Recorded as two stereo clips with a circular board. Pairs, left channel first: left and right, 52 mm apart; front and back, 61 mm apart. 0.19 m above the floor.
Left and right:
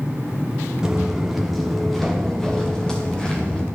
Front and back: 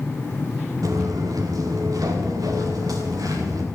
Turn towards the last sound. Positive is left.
turn(degrees=165)